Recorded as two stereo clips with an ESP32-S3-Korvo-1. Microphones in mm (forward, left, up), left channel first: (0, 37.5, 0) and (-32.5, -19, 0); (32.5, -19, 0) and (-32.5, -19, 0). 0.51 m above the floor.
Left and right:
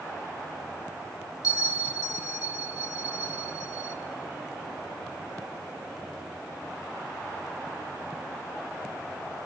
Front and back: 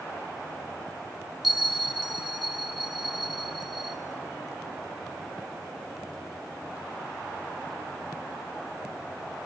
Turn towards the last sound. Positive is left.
turn(degrees=90)